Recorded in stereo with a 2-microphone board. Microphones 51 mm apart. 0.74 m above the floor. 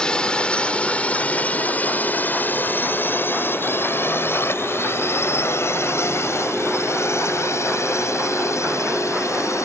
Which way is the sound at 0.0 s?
15° left (ahead or behind).